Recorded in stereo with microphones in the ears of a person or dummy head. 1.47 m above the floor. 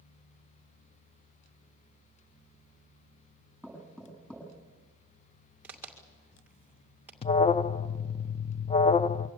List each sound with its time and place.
3.6 s knocking: centre (ahead or behind), 7 m
5.6 s a crack: centre (ahead or behind), 2 m
7.2 s an alarm: 25° left (ahead or behind), 0.5 m